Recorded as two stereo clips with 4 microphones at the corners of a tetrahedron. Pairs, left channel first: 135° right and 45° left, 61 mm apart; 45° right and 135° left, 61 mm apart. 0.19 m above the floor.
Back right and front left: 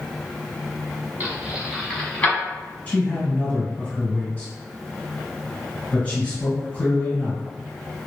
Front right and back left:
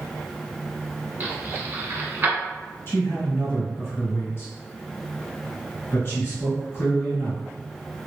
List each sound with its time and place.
1.2 s keys jangling: 90° left, 1.1 m; by 2.4 s 170° left, 1.0 m
2.9 s a man speaking: 75° right, 1.9 m